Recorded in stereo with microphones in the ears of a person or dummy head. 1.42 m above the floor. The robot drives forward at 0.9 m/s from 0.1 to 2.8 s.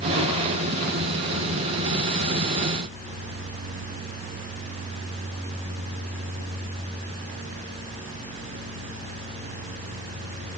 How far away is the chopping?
No chopping in this recording.